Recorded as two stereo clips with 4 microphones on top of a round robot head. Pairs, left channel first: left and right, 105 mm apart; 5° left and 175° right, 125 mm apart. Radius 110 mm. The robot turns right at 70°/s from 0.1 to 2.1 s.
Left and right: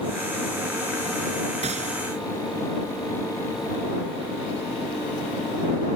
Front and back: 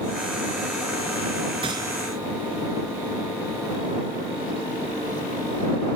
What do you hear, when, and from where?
1.6 s a gunshot: 120° right; by 2.0 s 95° right